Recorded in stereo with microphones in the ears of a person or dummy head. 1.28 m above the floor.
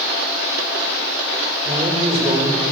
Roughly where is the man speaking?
Right.